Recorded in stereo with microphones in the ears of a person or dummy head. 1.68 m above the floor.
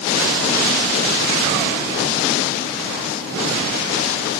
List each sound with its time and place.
Only background noise.